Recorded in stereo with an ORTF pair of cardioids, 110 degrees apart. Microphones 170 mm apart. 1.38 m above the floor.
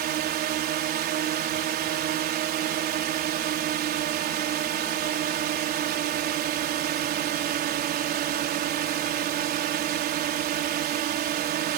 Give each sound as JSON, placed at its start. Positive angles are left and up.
{"t": 0.0, "sound": "a drone", "azimuth_deg": -65}